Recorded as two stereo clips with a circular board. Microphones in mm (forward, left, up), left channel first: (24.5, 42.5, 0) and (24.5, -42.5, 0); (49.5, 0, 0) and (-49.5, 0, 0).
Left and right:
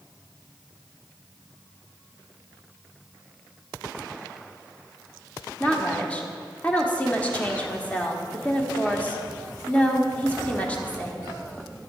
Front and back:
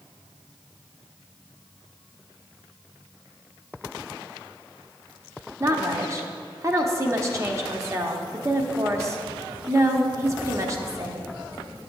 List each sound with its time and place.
5.6 s a woman speaking: 150° left, 0.9 m